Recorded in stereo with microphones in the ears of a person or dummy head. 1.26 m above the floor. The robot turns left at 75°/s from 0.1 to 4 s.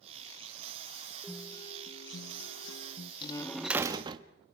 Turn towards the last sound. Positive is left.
turn(degrees=-30)